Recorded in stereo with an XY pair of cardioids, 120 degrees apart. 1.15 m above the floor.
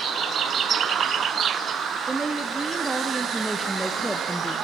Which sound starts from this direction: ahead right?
A woman speaking, at 2.1 s.